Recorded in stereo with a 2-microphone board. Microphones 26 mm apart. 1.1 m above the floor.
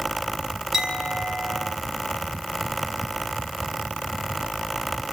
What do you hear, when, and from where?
0.7 s a clink: 10° right (ahead or behind), 5 m